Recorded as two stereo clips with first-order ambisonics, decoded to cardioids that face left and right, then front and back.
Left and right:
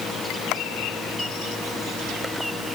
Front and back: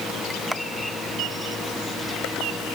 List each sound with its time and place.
Only background noise.